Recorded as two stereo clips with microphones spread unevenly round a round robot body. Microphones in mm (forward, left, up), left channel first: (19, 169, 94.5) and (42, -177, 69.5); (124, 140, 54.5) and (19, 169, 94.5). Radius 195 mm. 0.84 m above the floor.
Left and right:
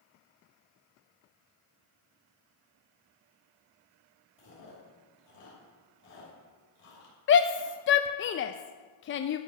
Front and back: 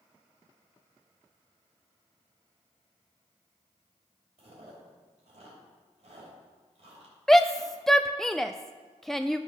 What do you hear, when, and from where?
4.4 s chewing: 150° left, 3 m
7.3 s a shout: 45° left, 0.5 m